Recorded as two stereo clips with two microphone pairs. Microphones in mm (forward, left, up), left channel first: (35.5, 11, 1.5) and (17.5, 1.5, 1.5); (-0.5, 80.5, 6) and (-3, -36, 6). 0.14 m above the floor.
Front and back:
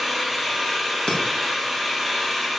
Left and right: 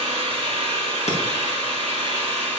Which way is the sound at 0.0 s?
50° right.